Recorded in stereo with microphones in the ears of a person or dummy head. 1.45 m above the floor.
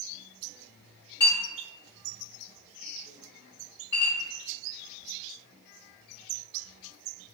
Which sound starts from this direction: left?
A clink, at 1.2 s.